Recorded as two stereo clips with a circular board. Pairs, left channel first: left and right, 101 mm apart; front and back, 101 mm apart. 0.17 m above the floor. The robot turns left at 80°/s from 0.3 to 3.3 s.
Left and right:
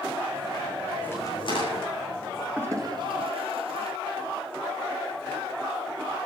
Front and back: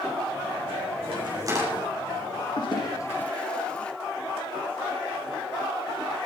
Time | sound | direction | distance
1.0 | a crack | 165° left | 8.5 m
2.6 | a toilet flushing | 20° right | 2.5 m